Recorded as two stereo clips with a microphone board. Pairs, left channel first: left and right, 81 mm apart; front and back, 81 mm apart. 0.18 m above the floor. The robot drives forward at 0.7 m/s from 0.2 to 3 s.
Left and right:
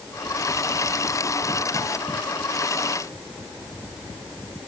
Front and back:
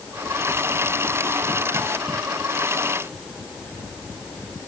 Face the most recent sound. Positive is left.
No sound to turn to.